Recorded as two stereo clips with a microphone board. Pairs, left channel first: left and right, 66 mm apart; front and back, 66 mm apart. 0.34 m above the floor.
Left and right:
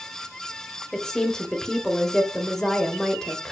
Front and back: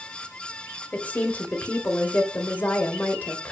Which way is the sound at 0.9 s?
15° left.